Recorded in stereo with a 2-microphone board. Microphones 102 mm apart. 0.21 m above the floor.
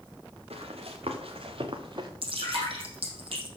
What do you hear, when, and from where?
0.5 s running footsteps: 75° right (ahead or behind), 3.5 m; by 2.1 s 50° right (ahead or behind), 2.0 m
2.2 s dripping: 60° right (ahead or behind), 5.5 m